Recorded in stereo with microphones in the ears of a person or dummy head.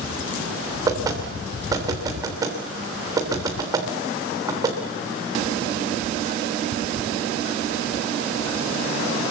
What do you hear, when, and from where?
0.9 s knocking: 15° right (ahead or behind), 3 m